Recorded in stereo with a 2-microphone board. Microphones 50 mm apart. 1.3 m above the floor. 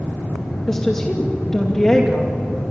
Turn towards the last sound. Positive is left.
turn(degrees=10)  # may be behind; listen again after turning